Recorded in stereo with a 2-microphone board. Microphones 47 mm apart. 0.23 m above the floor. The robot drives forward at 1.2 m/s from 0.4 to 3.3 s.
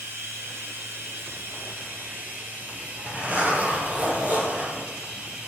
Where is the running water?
65° right (ahead or behind), 2.5 m; by 5.5 s 35° right (ahead or behind), 4 m.